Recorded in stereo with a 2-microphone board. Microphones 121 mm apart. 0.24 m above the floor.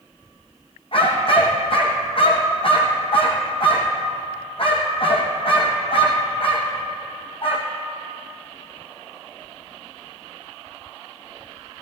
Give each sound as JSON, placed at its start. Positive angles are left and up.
{"t": 0.9, "sound": "a dog barking", "side_deg": 50, "distance_m": 3.0}